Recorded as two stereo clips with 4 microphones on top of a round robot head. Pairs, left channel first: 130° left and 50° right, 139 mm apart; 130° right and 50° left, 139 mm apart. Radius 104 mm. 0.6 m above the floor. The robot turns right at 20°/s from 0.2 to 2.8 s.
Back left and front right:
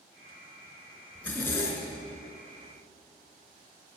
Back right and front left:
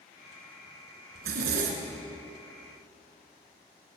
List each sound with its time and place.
1.1 s a zipper: 45° left, 3 m; by 2.0 s 65° left, 3 m